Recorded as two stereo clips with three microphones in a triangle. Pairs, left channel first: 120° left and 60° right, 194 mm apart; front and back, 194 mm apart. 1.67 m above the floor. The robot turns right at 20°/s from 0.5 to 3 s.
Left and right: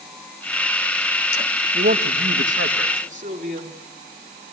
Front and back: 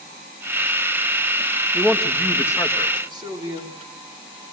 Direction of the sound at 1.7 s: 95° right.